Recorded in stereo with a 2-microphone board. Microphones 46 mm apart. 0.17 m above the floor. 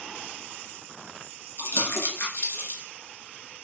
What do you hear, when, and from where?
1.6 s crumpling: 65° left (ahead or behind), 1.1 m